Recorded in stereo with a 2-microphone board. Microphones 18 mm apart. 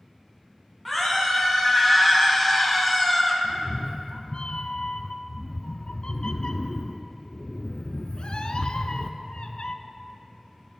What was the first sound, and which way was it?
A scream, 5° left (ahead or behind).